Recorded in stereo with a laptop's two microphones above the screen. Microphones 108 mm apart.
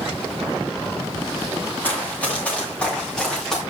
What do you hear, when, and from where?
1.8 s running footsteps: 15° left (ahead or behind), 8.5 m; by 3.6 s 5° left (ahead or behind), 8.5 m